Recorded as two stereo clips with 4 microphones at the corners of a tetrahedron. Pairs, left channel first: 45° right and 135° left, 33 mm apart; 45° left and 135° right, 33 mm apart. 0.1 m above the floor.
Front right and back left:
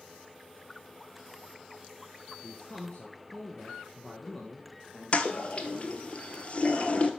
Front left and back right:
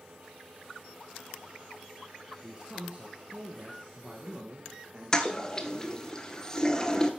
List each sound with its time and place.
2.4 s a man speaking: 85° right, 1.6 m; by 6.1 s 130° right, 3 m
5.1 s a toilet flushing: 20° right, 1.1 m